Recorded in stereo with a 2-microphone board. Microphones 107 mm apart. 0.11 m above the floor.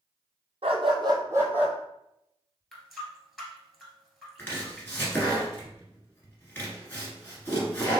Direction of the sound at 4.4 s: 20° left (ahead or behind).